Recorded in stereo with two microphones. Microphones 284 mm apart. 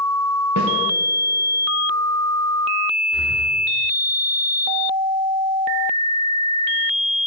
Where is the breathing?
20° left (ahead or behind), 3.5 m.